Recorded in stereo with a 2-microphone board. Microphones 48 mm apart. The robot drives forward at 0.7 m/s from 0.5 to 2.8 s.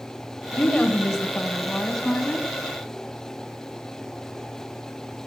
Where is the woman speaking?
15° left (ahead or behind), 1.1 m; by 2.5 s 10° left (ahead or behind), 2 m.